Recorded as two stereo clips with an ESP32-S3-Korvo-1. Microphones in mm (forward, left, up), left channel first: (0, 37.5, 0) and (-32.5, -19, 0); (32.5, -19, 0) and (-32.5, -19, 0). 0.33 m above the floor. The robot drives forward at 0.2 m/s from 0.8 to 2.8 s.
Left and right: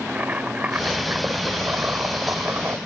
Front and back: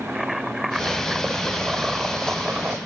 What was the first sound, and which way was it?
Boiling, 100° right.